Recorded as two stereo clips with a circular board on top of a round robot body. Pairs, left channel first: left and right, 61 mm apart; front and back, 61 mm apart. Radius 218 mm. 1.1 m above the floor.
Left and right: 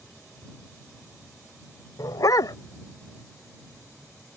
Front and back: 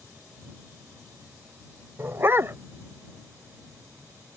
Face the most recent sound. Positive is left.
turn(degrees=125)